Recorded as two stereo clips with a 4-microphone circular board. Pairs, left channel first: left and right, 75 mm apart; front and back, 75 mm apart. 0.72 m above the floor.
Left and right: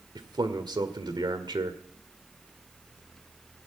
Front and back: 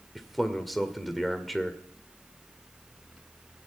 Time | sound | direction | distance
0.1 | a man speaking | 90° right | 1.9 m